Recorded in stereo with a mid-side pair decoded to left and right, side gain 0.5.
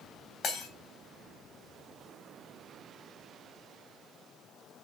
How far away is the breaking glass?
About 3.5 m.